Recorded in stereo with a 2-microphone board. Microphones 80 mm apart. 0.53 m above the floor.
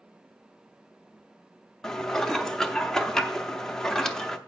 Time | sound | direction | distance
1.8 | dishes clattering | 10° left (ahead or behind) | 0.6 m